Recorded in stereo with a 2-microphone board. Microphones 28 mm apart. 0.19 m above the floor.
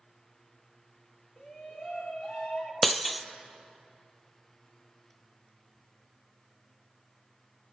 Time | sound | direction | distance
1.4 | a shout | 35° left (ahead or behind) | 3.5 m
2.8 | breaking glass | 5° left (ahead or behind) | 0.6 m